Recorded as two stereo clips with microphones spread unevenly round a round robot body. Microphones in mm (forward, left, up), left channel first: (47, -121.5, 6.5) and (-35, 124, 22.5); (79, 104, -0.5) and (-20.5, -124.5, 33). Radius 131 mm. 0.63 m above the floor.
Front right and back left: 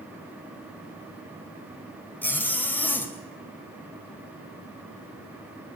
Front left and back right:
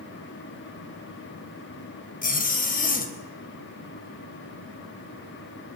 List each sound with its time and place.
2.2 s a zipper: 10° left, 3.5 m